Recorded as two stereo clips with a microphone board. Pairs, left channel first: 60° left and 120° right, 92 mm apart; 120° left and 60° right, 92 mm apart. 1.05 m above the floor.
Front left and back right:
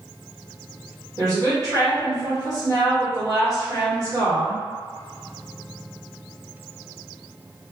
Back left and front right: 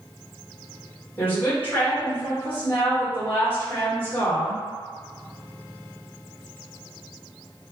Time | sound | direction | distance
1.2 | a woman speaking | 170° right | 1.3 m